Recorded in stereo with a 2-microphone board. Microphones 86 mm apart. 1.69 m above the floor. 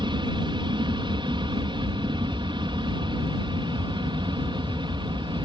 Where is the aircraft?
60° right (ahead or behind).